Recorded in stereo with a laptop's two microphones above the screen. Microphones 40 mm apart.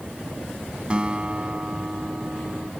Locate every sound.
0.9 s a guitar: 30° right (ahead or behind)